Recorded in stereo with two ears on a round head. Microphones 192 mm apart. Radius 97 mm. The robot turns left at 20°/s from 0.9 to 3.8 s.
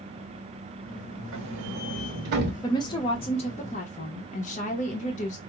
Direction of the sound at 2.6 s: 20° left (ahead or behind).